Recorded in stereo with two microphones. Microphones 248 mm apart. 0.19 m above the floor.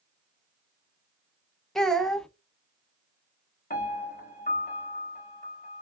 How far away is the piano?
About 1.4 m.